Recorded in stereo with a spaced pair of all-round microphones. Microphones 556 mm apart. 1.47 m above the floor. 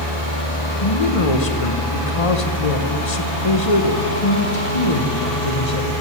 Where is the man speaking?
75° left (ahead or behind), 1.2 m.